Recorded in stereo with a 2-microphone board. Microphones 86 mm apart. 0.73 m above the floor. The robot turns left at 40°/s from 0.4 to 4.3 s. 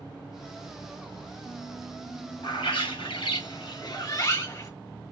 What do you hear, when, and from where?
2.4 s a bird: 110° left, 1.3 m; by 4.7 s 40° left, 1.3 m